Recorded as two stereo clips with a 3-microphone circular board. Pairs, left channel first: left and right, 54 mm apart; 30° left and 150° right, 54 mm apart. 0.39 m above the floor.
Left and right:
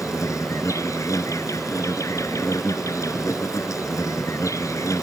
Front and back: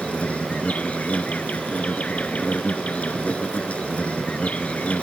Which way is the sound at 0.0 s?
95° left.